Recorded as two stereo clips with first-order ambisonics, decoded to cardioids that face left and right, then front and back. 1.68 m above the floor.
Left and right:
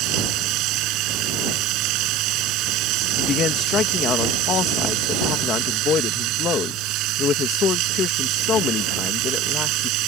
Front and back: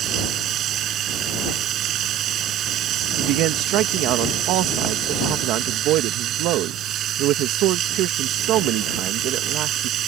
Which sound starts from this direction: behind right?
Running water, at 0.0 s.